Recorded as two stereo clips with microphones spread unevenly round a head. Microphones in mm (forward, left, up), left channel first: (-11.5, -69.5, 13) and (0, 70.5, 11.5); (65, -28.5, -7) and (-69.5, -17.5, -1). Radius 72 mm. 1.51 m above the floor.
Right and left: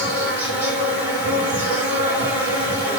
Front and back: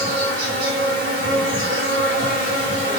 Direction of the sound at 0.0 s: 165° left.